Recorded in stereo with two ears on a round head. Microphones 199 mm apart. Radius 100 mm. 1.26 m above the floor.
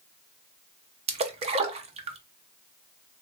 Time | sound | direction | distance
1.1 | a splash | 30° right (ahead or behind) | 0.5 m